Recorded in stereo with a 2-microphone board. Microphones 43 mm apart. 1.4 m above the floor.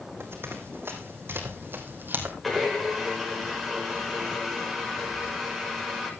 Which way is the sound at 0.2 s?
65° right (ahead or behind).